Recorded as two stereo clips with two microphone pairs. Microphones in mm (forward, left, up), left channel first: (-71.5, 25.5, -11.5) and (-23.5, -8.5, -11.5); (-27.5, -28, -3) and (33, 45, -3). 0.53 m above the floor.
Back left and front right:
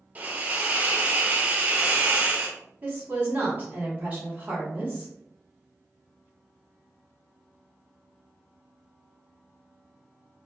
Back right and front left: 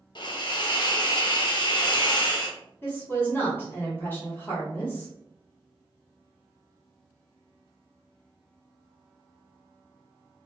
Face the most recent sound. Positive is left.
turn(degrees=-80)